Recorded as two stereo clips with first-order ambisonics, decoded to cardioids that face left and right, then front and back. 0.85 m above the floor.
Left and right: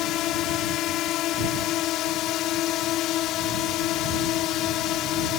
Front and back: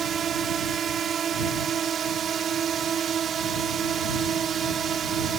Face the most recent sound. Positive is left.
turn(degrees=120)